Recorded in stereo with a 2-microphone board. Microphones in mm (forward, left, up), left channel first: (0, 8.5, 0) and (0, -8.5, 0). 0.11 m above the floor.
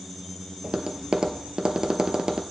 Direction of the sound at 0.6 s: 50° right (ahead or behind).